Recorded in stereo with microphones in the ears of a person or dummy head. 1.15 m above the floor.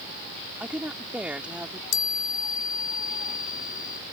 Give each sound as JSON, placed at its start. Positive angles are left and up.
{"t": 0.6, "sound": "a woman speaking", "side_deg": -5}
{"t": 1.9, "sound": "a chime", "side_deg": 40}